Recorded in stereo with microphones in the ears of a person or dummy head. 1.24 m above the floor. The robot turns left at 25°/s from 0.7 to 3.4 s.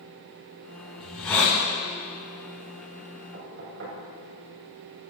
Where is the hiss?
Centre (ahead or behind), 5 m; by 1.6 s 15° left (ahead or behind), 5 m.